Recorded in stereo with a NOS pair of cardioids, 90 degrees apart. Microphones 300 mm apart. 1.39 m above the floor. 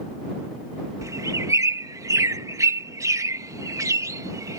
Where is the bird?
10° right.